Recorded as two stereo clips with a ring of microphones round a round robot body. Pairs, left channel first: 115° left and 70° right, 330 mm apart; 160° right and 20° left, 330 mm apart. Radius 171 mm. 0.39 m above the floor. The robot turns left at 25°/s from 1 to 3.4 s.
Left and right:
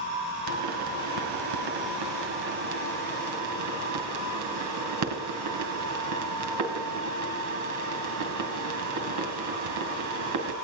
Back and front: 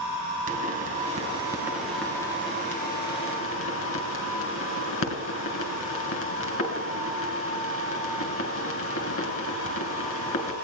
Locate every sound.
0.5 s a pop: 45° right, 2.5 m; by 10.5 s 105° right, 2.5 m